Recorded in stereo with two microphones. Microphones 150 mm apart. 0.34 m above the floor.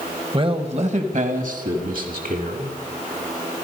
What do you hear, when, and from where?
0.3 s a man speaking: 35° right (ahead or behind), 1.3 m; by 2.8 s 75° right (ahead or behind), 3 m